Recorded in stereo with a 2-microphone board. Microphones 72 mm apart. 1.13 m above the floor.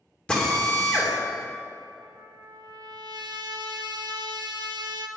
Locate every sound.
0.3 s a drill: 15° left (ahead or behind), 2.5 m
2.0 s a trumpet: 75° right (ahead or behind), 0.7 m